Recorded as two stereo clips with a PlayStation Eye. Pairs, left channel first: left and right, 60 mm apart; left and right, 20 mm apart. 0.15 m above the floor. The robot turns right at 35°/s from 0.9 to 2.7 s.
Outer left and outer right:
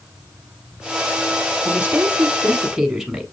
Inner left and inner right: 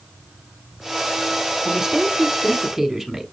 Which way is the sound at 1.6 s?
25° right (ahead or behind).